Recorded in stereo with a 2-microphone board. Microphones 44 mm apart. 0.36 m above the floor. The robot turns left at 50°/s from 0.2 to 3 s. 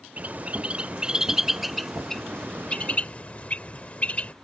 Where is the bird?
35° right (ahead or behind); by 4.3 s 35° left (ahead or behind).